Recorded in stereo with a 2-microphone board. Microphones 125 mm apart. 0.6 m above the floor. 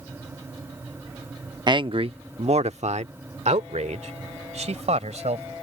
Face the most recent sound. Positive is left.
turn(degrees=-60)  # may be behind; listen again after turning